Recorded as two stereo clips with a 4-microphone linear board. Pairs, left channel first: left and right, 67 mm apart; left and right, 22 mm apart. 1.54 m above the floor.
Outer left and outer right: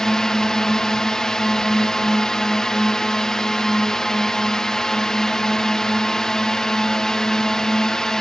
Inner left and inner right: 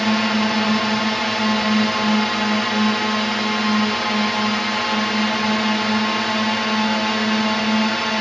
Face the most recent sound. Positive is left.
turn(degrees=10)  # may be behind; listen again after turning